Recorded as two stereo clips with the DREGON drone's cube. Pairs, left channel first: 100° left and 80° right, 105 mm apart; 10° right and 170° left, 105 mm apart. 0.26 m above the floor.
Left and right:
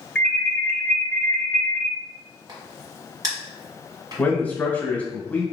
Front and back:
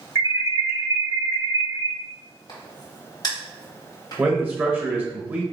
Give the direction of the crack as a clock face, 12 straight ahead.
1 o'clock.